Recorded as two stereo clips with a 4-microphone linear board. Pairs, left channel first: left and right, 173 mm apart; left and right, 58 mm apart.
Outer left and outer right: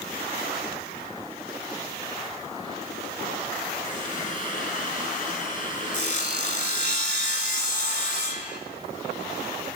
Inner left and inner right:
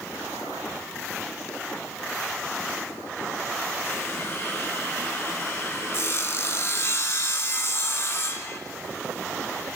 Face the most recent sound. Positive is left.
turn(degrees=50)  # may be behind; listen again after turning